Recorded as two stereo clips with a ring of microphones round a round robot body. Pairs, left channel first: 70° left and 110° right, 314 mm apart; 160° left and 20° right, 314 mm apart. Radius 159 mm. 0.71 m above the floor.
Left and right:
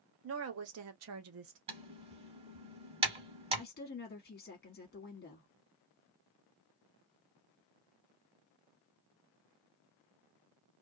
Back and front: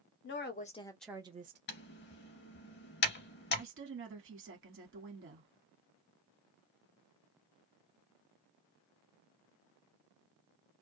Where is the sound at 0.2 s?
155° right, 1.0 m; by 1.6 s 70° right, 0.8 m.